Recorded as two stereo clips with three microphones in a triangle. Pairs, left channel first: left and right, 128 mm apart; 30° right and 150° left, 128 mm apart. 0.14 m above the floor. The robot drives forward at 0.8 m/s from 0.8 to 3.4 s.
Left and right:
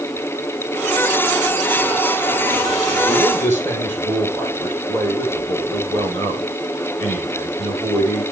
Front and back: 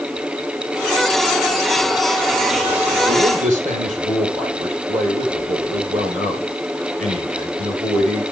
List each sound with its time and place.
3.0 s a man speaking: 160° left, 4.5 m